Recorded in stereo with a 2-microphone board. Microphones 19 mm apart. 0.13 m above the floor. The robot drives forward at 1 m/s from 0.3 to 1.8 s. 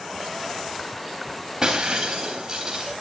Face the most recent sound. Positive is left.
turn(degrees=-25)  # may be behind; listen again after turning